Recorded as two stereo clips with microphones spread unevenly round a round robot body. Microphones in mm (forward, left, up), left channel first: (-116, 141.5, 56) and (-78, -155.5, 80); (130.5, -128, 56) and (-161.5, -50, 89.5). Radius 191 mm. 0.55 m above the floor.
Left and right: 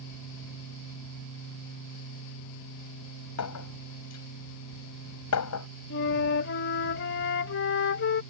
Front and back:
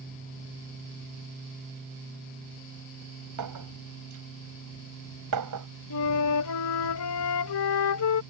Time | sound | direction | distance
3.4 | a clink | 130° left | ?
5.9 | a flute | 35° left | ?